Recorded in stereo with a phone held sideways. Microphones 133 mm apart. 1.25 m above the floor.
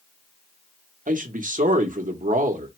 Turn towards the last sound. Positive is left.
turn(degrees=-70)  # may be behind; listen again after turning